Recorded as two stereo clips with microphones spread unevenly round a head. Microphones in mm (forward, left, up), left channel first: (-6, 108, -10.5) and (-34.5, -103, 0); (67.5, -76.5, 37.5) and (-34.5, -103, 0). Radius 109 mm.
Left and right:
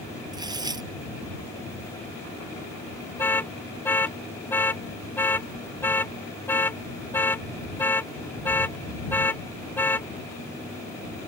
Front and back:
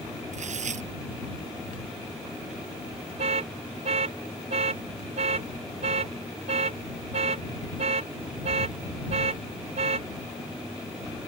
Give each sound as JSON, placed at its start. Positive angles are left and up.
{"t": 0.3, "sound": "tearing paper", "azimuth_deg": -170}
{"t": 3.2, "sound": "an alarm", "azimuth_deg": 165}